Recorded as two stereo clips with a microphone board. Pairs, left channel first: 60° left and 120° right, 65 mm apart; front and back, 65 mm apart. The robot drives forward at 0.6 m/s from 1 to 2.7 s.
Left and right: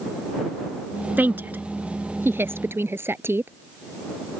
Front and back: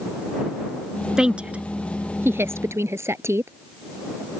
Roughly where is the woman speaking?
Right.